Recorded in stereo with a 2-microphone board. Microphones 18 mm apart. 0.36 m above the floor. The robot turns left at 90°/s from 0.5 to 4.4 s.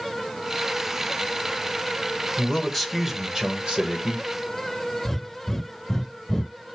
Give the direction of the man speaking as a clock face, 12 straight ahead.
10 o'clock.